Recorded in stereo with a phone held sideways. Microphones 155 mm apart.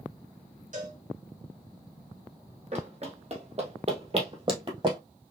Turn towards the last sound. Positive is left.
turn(degrees=-35)  # may be behind; listen again after turning